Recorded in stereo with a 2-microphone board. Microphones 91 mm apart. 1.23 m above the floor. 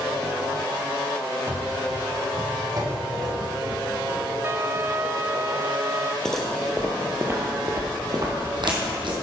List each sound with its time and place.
1.5 s running footsteps: 30° right (ahead or behind), 1.7 m; by 4.2 s 45° right (ahead or behind), 4.5 m
4.4 s a trumpet: 30° right (ahead or behind), 0.5 m
6.2 s footsteps: 5° left (ahead or behind), 1.8 m; by 9.1 s 65° right (ahead or behind), 3 m